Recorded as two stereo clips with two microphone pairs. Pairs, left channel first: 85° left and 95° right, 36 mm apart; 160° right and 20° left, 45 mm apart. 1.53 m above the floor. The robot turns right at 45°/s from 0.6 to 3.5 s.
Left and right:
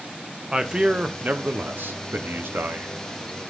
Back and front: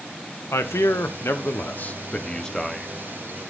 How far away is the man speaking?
About 0.8 m.